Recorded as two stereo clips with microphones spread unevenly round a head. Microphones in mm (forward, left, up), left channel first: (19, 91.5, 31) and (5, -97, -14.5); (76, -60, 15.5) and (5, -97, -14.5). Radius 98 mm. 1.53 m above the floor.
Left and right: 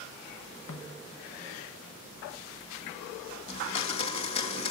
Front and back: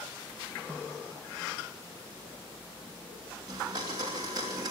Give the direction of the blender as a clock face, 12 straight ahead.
8 o'clock.